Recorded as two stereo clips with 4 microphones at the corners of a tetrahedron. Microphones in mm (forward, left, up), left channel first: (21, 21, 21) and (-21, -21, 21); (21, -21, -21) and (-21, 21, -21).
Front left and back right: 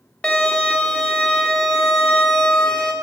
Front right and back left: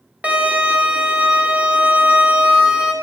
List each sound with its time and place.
0.2 s a violin: 100° left, 1.2 m